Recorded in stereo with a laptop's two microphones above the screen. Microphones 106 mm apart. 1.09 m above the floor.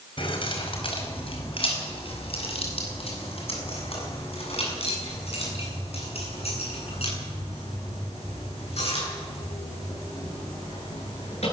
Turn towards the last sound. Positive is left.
turn(degrees=75)  # may be behind; listen again after turning